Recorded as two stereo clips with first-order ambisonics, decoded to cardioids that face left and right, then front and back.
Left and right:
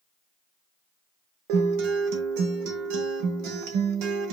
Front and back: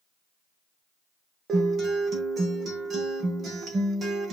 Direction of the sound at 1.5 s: 110° right.